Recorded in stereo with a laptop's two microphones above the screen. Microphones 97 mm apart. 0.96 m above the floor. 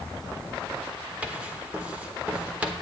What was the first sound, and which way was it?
Writing, 15° right (ahead or behind).